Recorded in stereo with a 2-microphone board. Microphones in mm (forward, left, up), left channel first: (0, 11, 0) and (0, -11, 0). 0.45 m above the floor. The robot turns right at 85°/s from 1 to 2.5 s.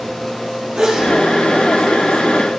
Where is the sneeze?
50° right (ahead or behind), 7.5 m; by 1.1 s 40° right (ahead or behind), 7.5 m.